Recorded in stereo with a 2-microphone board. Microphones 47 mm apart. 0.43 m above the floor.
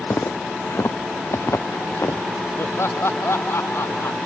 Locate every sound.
0.1 s footsteps: 65° left (ahead or behind); by 2.2 s 70° left (ahead or behind)
2.6 s laughter: 65° left (ahead or behind)